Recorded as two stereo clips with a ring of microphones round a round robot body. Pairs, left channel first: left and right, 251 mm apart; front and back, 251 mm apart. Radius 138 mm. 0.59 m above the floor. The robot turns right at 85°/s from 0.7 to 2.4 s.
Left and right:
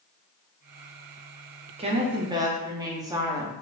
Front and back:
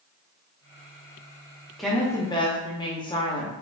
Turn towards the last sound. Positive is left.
turn(degrees=-40)